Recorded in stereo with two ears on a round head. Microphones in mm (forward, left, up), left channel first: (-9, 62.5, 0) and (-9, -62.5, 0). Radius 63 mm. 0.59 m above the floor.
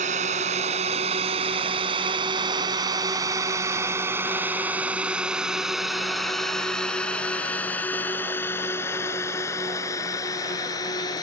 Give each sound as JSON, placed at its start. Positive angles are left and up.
{"t": 0.0, "sound": "a drone", "side_deg": -50}